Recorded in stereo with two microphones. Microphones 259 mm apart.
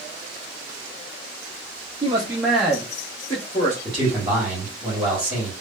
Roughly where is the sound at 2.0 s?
Right.